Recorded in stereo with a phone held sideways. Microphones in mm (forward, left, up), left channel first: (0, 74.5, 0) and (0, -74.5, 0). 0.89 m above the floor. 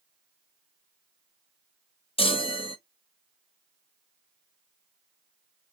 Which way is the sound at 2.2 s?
40° left (ahead or behind).